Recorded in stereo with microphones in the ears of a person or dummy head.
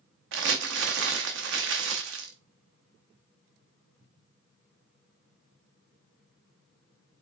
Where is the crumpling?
65° right (ahead or behind), 0.7 m.